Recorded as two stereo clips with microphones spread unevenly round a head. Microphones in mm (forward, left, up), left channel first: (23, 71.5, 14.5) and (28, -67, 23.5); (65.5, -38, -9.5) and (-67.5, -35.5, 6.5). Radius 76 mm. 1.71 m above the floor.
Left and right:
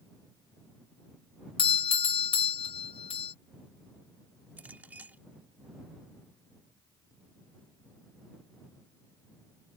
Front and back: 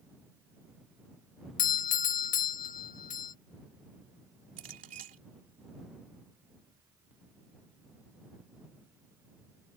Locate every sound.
1.6 s a doorbell: 40° left
4.6 s a clink: 165° right